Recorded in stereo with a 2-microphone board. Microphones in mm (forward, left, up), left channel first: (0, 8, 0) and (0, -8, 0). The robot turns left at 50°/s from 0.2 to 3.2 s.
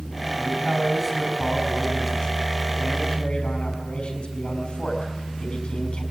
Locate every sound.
0.4 s a man speaking: 125° right, 4.5 m; by 6.0 s 90° left, 4.5 m